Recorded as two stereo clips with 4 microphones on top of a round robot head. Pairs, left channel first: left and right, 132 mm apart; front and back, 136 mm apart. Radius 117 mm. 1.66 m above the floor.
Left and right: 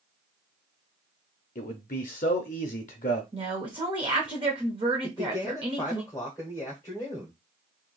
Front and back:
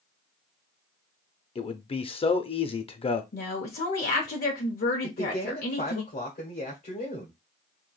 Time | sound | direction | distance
1.6 | a man speaking | 50° left | 0.6 m
3.3 | a woman speaking | 25° right | 0.6 m
5.0 | a man speaking | 15° left | 0.9 m